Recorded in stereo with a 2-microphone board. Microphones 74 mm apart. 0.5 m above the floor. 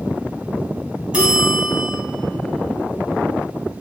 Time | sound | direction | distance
1.1 | a bell | 15° right (ahead or behind) | 1.6 m